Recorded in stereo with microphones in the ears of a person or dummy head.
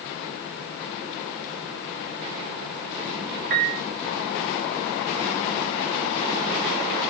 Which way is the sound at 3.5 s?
40° right (ahead or behind).